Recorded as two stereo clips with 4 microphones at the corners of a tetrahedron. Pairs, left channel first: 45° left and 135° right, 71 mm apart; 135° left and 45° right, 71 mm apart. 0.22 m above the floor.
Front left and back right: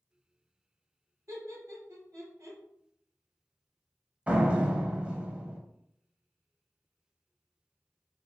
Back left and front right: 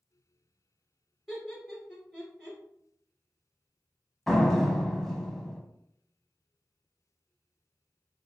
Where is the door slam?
145° right, 0.8 m.